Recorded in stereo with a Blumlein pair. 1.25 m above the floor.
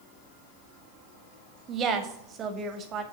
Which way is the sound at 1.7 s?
30° right.